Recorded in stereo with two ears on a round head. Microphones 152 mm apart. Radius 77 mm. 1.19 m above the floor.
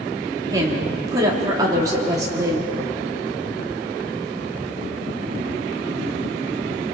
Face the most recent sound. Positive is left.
turn(degrees=-20)  # may be behind; listen again after turning